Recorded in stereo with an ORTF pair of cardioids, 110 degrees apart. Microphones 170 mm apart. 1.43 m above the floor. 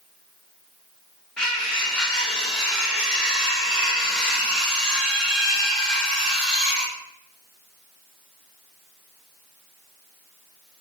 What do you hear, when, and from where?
1.4 s cutlery clinking: 5° left, 2.0 m